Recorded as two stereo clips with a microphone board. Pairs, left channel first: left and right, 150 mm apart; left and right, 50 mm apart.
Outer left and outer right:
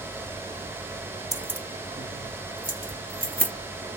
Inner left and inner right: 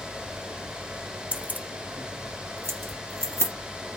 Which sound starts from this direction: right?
Keys jangling, at 1.3 s.